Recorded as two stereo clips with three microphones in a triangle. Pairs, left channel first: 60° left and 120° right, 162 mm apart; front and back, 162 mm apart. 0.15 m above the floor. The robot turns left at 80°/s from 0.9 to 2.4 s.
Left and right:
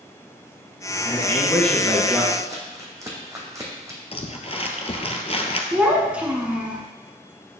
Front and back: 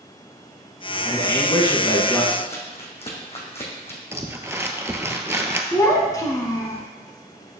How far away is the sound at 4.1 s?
About 0.8 m.